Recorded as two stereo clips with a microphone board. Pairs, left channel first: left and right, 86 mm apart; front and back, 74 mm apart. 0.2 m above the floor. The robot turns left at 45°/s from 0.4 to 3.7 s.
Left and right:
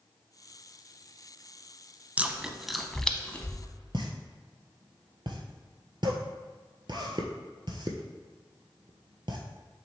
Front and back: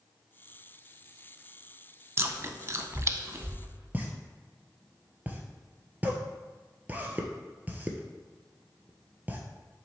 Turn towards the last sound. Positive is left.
turn(degrees=-115)